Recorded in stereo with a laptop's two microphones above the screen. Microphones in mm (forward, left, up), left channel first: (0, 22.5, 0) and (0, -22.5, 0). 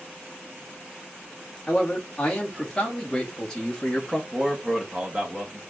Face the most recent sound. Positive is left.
turn(degrees=-15)  # may be behind; listen again after turning